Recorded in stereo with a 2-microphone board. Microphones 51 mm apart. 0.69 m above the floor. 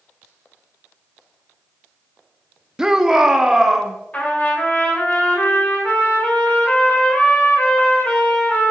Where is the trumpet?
25° left (ahead or behind), 3 m.